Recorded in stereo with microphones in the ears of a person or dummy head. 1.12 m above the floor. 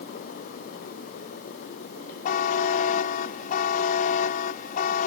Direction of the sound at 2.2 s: 45° left (ahead or behind).